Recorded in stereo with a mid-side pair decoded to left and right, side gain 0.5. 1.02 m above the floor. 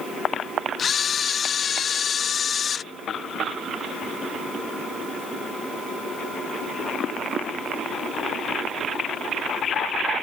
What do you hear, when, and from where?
0.8 s a camera shutter: 45° left